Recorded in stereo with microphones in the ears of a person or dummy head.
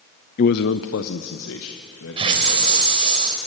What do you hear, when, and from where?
0.4 s a man speaking: 40° left (ahead or behind), 0.5 m; by 3.2 s 85° left, 4 m
2.2 s a hiss: 25° right (ahead or behind), 3 m